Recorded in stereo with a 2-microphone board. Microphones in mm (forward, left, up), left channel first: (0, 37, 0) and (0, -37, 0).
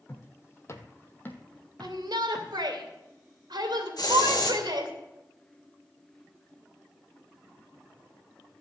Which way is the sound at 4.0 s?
65° left (ahead or behind).